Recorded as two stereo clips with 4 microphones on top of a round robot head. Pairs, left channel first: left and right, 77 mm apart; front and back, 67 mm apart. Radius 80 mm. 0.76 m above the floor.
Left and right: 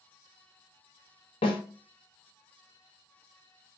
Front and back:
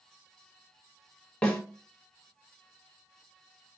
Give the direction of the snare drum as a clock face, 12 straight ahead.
10 o'clock.